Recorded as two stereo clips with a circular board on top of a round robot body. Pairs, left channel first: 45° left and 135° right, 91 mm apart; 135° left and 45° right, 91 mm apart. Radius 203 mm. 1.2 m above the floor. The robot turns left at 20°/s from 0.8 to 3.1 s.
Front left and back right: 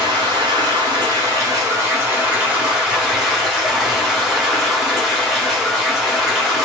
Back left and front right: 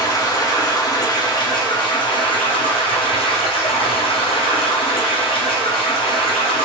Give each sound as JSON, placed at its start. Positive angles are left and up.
{"t": 0.0, "sound": "running water", "azimuth_deg": -175, "distance_m": 1.0}